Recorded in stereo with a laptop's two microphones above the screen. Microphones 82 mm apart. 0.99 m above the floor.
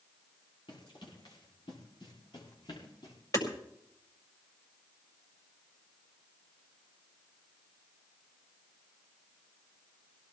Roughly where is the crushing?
No crushing in this recording.